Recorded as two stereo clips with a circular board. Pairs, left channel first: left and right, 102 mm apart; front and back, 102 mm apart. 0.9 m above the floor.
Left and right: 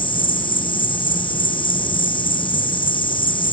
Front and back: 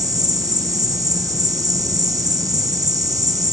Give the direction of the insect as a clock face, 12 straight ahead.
8 o'clock.